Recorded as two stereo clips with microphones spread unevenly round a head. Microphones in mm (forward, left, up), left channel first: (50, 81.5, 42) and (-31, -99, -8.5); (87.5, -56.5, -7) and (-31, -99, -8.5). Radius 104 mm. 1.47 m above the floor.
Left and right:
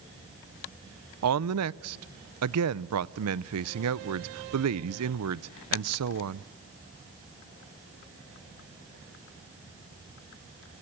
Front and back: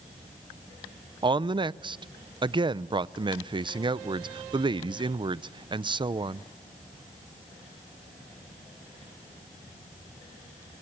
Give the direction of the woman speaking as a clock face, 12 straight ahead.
4 o'clock.